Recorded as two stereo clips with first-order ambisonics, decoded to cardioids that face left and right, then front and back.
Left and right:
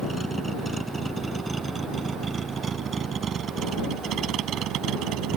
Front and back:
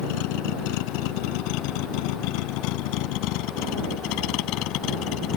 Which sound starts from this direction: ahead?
A vehicle, at 0.0 s.